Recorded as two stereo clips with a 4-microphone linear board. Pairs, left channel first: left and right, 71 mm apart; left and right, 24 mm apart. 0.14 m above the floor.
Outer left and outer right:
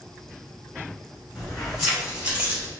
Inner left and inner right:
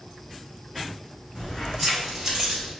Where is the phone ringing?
I don't hear a phone ringing.